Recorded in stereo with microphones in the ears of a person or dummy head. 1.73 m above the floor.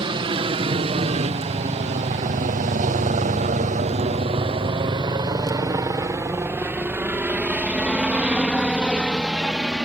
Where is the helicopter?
30° right (ahead or behind); by 9.9 s 5° right (ahead or behind).